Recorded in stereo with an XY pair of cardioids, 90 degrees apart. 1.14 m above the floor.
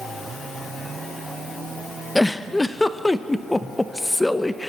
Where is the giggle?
20° left, 1.0 m.